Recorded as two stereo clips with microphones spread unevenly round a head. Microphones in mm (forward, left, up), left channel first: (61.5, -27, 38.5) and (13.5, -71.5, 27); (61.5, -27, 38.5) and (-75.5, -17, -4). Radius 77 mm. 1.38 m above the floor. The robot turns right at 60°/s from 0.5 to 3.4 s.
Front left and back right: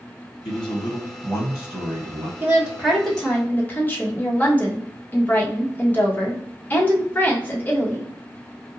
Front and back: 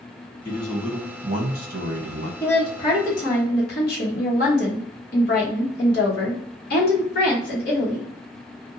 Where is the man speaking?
65° left, 0.9 m; by 2.3 s 175° left, 0.9 m.